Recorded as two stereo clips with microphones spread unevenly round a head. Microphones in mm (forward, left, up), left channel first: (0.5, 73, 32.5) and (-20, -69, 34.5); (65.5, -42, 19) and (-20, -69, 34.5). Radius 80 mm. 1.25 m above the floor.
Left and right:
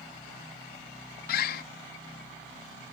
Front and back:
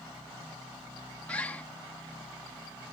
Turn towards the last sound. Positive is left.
turn(degrees=100)